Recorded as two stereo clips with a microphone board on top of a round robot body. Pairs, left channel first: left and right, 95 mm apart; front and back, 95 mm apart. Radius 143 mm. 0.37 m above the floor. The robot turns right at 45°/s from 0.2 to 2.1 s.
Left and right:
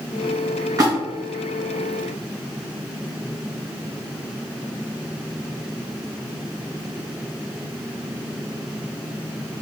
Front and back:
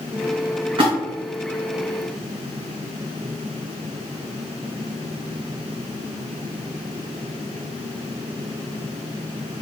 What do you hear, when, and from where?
0.8 s a splash: 145° right, 2.5 m; by 0.9 s 140° right, 2.5 m